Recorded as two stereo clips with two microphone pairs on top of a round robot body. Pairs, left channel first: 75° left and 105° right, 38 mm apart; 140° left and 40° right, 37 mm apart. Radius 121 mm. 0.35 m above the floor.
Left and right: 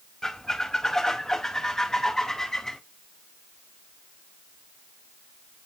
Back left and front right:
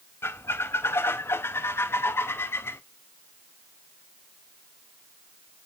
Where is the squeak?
150° left, 0.5 m.